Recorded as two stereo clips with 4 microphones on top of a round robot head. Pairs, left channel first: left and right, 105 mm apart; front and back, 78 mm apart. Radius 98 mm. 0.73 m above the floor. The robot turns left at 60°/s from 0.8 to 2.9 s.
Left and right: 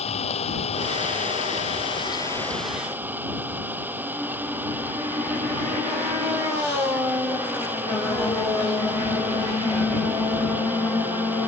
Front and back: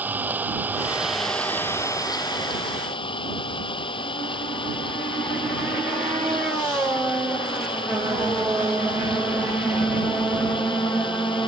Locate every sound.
0.0 s an engine running: 110° left; by 11.5 s 15° right